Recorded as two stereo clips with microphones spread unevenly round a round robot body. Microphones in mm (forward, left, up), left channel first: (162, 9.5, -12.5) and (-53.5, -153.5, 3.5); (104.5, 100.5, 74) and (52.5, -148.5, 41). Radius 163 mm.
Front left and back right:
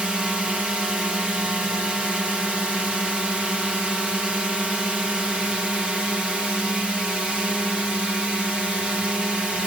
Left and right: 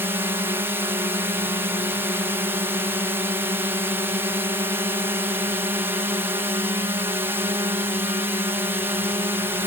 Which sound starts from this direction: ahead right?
A drone, at 0.0 s.